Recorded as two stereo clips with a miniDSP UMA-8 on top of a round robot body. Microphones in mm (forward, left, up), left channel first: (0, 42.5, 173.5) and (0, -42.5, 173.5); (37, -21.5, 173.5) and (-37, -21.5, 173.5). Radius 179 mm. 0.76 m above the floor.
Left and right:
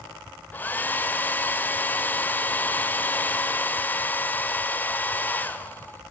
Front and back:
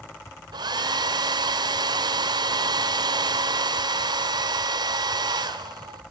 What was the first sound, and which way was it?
A hair dryer, 160° left.